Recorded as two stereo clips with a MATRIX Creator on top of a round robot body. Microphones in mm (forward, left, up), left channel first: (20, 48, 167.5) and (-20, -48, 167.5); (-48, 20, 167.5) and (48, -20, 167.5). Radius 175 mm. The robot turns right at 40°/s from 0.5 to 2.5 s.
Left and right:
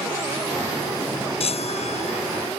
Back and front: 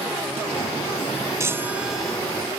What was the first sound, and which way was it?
A chime, 40° left.